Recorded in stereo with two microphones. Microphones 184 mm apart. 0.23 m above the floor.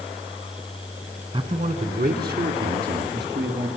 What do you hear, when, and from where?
1.3 s a man speaking: 30° right (ahead or behind), 2 m; by 3.7 s 70° right (ahead or behind), 4.5 m